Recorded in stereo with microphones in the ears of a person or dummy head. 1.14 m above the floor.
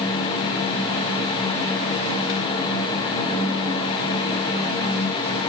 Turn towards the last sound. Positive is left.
No sound to turn to.